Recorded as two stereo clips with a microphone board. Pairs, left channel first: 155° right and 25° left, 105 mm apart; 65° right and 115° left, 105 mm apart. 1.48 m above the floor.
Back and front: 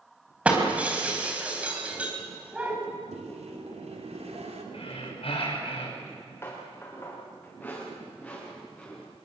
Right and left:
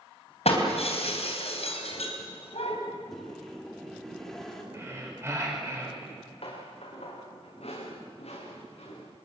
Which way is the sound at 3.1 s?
20° left.